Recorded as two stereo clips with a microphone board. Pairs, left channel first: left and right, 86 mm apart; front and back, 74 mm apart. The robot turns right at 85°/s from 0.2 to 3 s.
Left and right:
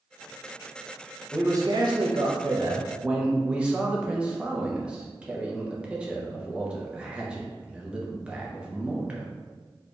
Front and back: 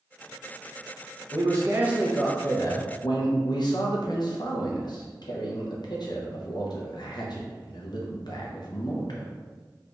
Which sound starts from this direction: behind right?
A man speaking, at 1.3 s.